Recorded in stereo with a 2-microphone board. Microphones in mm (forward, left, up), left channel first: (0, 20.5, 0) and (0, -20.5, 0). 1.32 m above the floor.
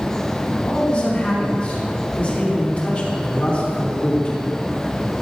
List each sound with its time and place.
0.5 s a man speaking: 35° left (ahead or behind), 4 m